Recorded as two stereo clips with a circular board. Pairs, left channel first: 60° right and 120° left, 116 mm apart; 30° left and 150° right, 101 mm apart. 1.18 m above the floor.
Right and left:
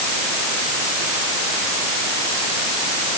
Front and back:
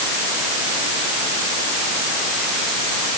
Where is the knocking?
No knocking in this recording.